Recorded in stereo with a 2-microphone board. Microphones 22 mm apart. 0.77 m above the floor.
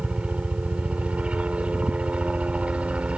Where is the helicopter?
60° right (ahead or behind).